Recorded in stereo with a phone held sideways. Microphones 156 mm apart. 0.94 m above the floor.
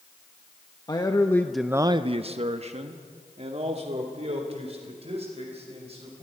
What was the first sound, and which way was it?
A man speaking, 25° left (ahead or behind).